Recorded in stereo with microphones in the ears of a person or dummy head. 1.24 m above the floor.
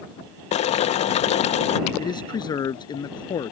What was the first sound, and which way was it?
Boiling, 35° left (ahead or behind).